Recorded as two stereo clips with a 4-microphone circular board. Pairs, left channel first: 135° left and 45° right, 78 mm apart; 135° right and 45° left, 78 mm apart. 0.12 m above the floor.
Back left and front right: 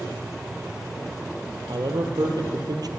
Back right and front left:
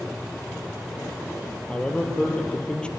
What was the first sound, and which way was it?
A man speaking, 60° right.